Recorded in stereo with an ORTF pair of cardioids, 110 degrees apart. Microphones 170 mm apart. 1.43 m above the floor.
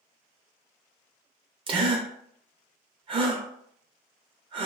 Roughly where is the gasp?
Ahead right.